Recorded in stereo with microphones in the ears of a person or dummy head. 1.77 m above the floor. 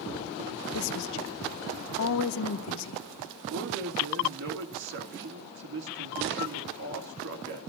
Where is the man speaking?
50° right (ahead or behind), 2.5 m.